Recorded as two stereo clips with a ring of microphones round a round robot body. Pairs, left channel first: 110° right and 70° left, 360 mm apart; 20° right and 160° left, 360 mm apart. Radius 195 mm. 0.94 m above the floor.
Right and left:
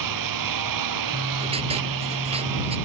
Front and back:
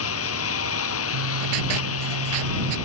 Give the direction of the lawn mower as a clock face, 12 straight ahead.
11 o'clock.